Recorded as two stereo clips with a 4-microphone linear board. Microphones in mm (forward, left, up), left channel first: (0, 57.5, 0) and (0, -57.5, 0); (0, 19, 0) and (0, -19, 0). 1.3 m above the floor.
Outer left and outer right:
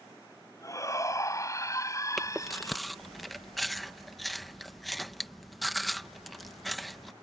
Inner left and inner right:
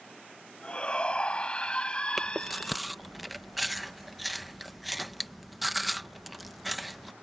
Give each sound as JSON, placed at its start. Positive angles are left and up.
{"t": 0.6, "sound": "a shout", "side_deg": 30}
{"t": 2.2, "sound": "chewing", "side_deg": 0}